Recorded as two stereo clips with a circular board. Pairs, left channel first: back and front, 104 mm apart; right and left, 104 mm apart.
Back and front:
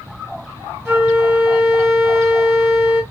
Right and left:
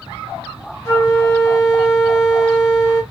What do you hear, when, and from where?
0.8 s a flute: 50° right, 1.6 m